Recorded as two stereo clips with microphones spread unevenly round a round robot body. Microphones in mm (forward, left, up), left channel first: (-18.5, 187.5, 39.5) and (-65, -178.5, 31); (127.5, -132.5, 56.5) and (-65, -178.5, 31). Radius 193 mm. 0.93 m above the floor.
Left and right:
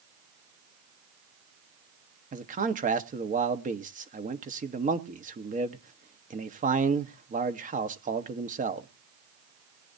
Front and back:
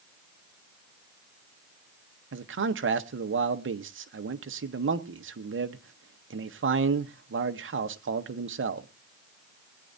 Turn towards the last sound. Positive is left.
turn(degrees=-165)